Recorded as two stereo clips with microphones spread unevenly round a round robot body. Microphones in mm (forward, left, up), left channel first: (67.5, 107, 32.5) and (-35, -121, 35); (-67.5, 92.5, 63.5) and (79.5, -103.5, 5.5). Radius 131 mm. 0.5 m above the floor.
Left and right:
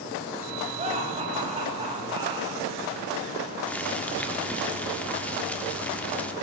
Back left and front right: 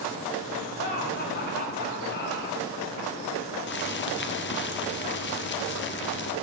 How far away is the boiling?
About 1.5 m.